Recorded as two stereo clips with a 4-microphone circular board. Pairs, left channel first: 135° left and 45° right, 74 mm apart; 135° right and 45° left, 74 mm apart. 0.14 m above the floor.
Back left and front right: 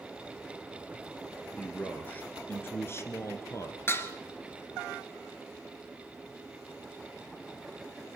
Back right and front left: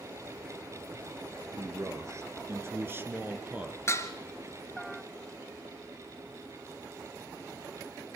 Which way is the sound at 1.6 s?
70° left.